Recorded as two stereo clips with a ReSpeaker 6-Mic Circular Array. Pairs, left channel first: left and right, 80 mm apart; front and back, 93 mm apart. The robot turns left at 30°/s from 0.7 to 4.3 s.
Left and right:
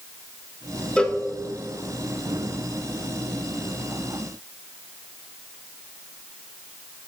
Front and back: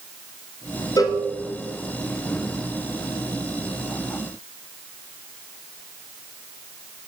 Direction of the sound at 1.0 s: 15° left.